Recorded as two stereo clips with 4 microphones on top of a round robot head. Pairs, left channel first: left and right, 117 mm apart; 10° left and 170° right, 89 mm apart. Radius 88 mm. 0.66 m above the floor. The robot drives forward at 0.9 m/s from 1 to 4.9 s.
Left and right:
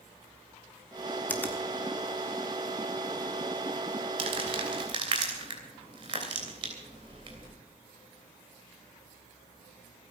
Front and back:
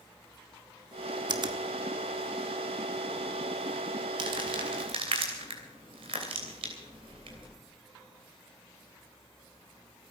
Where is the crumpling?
135° right, 2.5 m; by 7.5 s 145° right, 3 m.